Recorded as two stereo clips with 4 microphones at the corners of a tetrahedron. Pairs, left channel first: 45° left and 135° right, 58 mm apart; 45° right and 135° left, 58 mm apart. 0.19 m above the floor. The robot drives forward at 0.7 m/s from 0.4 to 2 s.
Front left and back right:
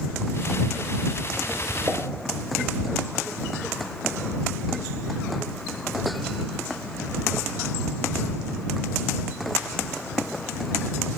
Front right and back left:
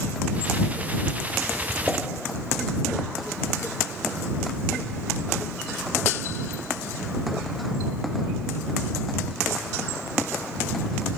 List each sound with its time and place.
1.9 s a pop: 120° right, 1.8 m